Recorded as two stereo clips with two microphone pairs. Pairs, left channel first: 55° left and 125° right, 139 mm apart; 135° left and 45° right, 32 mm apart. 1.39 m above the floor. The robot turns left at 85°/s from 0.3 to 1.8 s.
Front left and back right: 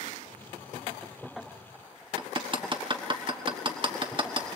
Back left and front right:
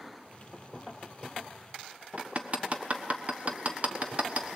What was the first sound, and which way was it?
Hammering, 80° right.